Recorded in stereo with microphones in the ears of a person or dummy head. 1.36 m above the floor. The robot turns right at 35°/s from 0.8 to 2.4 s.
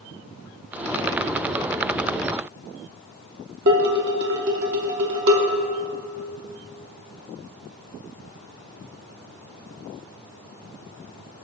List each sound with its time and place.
3.7 s dishes clattering: 60° right (ahead or behind), 1.0 m